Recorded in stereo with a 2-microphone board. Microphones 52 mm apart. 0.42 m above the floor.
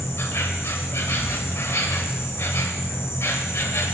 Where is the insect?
55° left (ahead or behind), 0.9 m.